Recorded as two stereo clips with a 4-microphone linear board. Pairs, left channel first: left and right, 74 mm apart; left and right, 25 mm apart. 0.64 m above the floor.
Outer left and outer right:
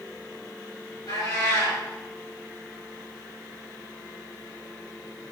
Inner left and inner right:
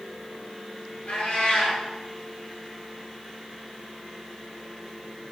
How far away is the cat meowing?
About 3.5 m.